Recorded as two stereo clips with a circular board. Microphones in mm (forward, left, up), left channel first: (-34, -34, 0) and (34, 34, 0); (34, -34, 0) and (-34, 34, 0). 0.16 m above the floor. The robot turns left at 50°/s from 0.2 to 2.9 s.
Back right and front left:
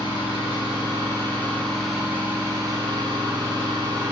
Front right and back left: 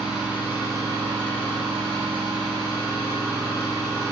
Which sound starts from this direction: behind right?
An engine running, at 0.0 s.